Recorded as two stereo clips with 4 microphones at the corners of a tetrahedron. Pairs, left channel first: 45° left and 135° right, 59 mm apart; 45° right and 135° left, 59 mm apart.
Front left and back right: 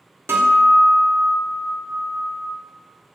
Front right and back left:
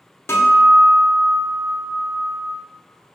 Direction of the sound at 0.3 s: 90° right.